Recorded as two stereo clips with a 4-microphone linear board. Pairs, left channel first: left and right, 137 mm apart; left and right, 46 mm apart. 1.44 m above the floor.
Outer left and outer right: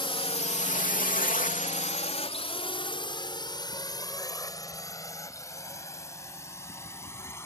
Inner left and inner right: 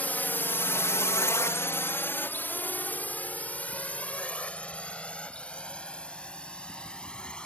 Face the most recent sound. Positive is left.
turn(degrees=20)  # may be behind; listen again after turning